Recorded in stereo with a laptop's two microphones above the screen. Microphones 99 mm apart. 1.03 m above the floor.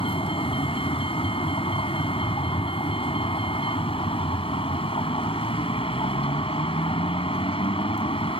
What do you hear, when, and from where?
0.0 s a vehicle: 75° left (ahead or behind)